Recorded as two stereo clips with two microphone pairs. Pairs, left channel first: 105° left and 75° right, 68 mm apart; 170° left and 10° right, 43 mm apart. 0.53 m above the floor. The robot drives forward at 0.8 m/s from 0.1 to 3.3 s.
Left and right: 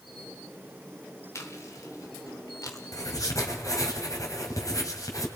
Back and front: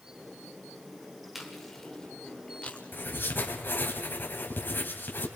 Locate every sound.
1.4 s chewing: 80° left, 1.9 m; by 3.5 s 125° left, 2.5 m
2.9 s writing: 135° left, 3 m